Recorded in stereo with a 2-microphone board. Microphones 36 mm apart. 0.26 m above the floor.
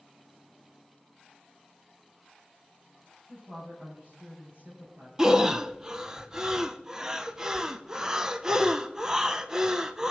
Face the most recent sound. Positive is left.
turn(degrees=-20)  # may be behind; listen again after turning